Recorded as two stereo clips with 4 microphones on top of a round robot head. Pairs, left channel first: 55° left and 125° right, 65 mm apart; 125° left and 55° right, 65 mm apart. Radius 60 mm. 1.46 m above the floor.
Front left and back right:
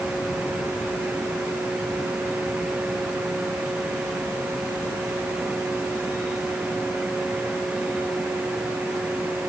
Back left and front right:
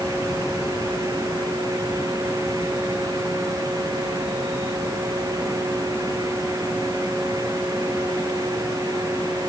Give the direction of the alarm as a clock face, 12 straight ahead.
I don't hear an alarm.